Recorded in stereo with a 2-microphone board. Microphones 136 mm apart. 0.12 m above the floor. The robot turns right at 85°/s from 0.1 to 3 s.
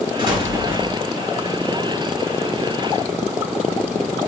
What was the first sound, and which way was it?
An explosion, 75° right.